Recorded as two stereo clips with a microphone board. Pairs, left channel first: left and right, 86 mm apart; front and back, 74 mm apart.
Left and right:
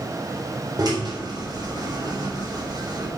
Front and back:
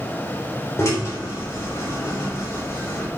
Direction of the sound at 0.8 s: 50° right.